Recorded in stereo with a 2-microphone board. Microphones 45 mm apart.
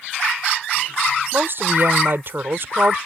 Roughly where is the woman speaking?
Right.